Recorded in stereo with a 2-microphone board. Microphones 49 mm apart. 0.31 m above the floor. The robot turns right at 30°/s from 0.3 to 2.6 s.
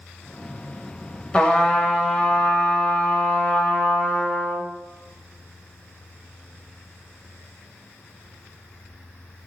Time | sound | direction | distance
1.3 | a trumpet | 30° left | 0.8 m